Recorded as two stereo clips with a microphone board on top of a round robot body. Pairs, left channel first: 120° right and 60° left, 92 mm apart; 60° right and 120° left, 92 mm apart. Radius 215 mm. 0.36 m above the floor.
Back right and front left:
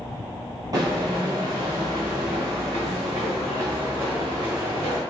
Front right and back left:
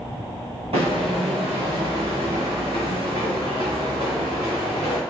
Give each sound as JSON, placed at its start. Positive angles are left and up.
{"t": 0.7, "sound": "footsteps", "azimuth_deg": 110, "distance_m": 0.5}